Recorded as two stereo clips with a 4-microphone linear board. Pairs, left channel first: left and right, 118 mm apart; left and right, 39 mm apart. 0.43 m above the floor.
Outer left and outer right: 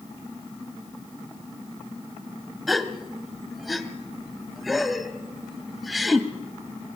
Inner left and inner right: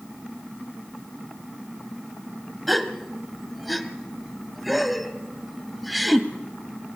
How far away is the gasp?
About 1.4 m.